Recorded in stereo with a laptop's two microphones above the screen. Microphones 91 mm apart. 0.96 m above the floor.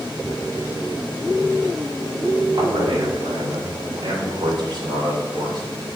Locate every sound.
2.5 s a man speaking: 70° right (ahead or behind), 4 m; by 5.6 s 50° right (ahead or behind), 3.5 m